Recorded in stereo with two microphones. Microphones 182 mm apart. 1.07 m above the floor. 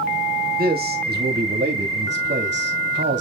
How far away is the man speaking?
About 2.5 m.